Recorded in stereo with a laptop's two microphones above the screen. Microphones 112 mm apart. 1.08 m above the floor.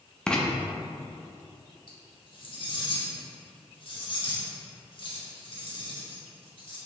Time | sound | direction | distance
0.3 | writing | 10° left (ahead or behind) | 0.6 m
1.9 | cutlery clinking | 50° left (ahead or behind) | 1.2 m